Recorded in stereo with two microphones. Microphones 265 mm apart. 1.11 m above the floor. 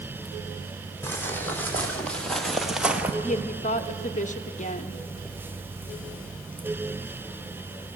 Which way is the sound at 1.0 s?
10° left (ahead or behind).